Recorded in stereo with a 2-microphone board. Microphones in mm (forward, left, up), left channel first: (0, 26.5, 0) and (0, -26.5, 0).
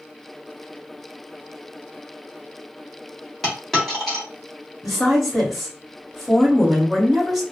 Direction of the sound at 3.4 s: 5° left (ahead or behind).